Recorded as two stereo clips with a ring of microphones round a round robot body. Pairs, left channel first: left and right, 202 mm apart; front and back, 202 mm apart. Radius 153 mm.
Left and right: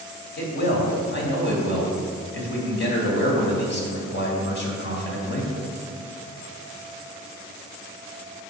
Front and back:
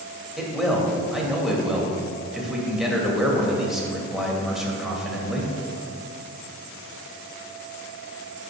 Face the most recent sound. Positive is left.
turn(degrees=90)